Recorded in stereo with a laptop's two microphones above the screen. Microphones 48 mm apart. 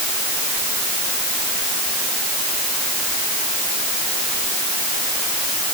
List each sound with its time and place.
Only background noise.